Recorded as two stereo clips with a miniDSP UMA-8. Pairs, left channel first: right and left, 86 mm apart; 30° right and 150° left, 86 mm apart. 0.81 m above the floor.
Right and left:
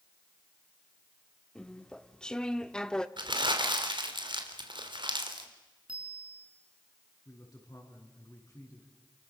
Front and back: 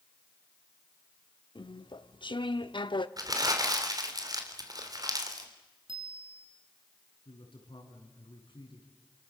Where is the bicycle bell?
170° left, 6.5 m.